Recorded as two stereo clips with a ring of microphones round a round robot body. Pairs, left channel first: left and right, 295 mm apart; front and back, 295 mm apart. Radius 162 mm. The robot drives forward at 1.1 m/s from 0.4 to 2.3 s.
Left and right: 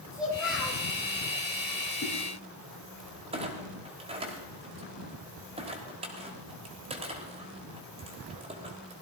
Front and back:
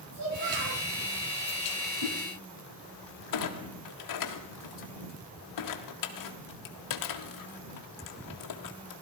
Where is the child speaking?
Straight behind, 8.5 m.